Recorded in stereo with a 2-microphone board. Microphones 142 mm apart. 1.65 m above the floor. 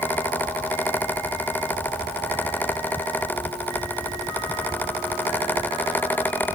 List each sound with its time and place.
Only background noise.